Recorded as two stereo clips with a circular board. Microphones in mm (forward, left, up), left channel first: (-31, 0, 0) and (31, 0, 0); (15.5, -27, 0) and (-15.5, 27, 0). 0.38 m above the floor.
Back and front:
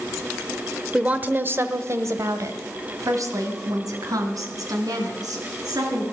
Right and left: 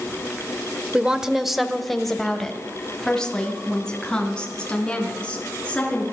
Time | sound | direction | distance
0.9 | a woman speaking | 60° left | 0.9 m